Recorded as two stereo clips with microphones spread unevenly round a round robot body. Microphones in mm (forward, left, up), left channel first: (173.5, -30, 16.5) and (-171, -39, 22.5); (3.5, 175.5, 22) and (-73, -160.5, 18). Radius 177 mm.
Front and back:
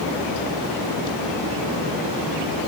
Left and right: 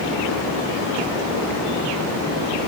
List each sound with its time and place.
Only background noise.